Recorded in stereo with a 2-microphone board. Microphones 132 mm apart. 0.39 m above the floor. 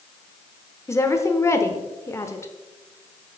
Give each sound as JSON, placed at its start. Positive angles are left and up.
{"t": 0.9, "sound": "a woman speaking", "side_deg": 20, "distance_m": 0.8}